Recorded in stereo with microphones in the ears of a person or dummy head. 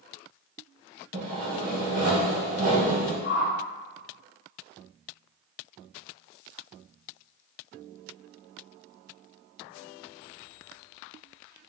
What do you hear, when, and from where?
1.1 s sawing: 40° right (ahead or behind), 1.9 m
3.2 s a whoosh: 70° left (ahead or behind), 1.0 m